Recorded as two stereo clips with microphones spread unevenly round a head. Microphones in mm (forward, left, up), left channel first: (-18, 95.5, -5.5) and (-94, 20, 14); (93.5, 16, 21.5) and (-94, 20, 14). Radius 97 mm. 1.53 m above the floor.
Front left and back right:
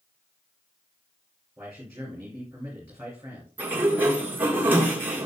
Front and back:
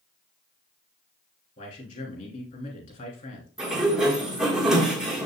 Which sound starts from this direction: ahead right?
A man speaking, at 1.6 s.